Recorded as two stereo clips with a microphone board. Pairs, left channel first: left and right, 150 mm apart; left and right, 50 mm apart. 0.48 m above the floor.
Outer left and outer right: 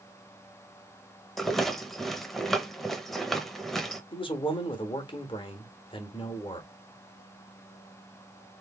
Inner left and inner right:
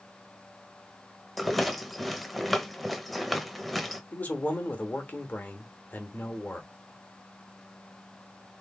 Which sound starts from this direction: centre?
A rattle, at 1.4 s.